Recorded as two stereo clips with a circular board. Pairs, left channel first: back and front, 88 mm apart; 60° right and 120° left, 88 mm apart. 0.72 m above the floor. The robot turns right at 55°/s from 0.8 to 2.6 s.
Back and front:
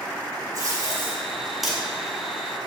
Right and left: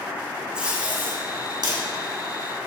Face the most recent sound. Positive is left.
turn(degrees=140)